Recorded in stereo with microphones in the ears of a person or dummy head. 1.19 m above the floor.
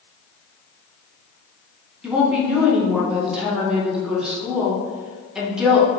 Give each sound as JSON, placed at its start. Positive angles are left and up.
{"t": 2.0, "sound": "a woman speaking", "side_deg": -5, "distance_m": 0.8}